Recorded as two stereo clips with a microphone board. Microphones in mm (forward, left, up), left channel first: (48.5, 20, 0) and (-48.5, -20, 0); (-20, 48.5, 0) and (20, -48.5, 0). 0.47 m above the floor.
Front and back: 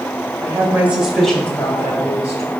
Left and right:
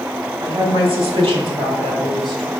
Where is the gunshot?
I don't hear a gunshot.